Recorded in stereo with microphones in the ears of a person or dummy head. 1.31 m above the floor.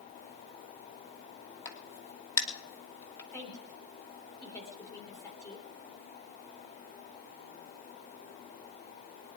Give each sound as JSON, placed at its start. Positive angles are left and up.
{"t": 1.6, "sound": "a crack", "side_deg": 15, "distance_m": 2.5}
{"t": 3.3, "sound": "a woman speaking", "side_deg": 15, "distance_m": 3.0}